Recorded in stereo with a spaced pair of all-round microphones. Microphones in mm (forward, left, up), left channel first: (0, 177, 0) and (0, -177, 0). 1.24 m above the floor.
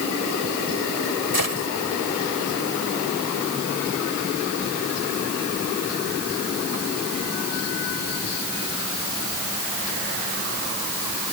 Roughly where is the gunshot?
Right.